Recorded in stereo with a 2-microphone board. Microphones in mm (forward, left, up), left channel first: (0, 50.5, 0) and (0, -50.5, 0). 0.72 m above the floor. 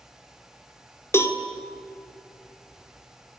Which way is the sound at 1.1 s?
25° left (ahead or behind).